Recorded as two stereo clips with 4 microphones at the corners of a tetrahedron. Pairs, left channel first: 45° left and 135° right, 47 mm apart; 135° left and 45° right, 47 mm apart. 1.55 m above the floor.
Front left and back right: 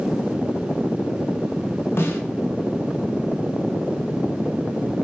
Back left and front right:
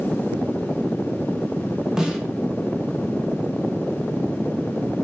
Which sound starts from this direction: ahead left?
A snare drum, at 2.0 s.